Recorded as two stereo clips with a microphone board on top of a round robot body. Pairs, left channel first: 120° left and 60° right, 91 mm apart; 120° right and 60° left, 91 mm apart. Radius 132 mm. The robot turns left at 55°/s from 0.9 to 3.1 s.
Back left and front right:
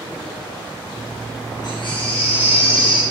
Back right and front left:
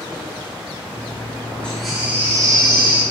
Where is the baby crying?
160° left, 6.5 m; by 3.0 s 85° left, 6.5 m.